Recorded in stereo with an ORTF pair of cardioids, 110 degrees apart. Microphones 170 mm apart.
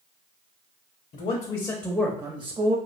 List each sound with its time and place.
1.1 s a man speaking: 50° left, 0.6 m; by 2.8 s 40° right, 0.7 m